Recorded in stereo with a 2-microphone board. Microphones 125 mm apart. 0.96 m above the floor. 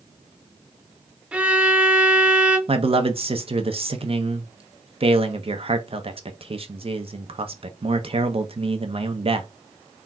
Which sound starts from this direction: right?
A man speaking, at 2.7 s.